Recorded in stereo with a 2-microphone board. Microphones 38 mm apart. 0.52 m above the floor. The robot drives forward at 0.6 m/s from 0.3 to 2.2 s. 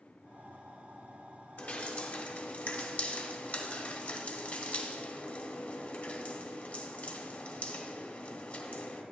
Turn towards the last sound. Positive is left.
turn(degrees=40)  # may be behind; listen again after turning